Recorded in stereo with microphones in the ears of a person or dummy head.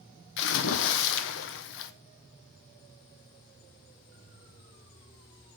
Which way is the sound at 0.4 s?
70° left (ahead or behind).